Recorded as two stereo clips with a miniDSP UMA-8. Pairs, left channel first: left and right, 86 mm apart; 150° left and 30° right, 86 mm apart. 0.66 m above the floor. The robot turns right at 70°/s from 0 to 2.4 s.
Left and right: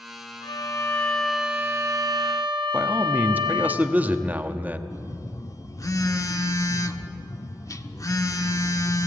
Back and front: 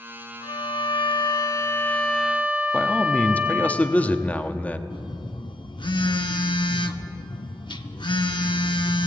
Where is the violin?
120° left, 2.5 m; by 3.7 s 100° right, 2.5 m.